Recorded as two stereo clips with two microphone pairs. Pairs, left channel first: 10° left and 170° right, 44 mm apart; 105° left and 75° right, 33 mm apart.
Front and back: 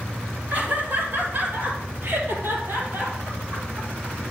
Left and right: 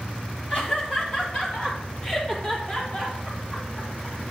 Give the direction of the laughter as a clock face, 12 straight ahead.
7 o'clock.